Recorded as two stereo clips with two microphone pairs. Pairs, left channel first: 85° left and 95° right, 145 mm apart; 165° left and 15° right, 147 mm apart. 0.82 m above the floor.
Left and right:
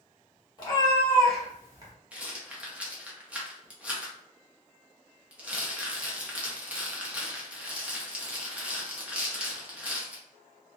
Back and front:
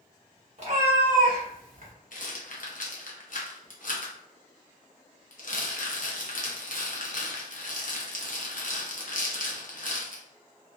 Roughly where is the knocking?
I don't hear knocking.